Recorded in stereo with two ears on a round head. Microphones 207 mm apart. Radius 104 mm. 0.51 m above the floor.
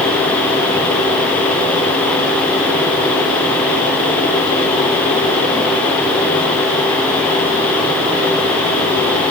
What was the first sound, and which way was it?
Only background noise.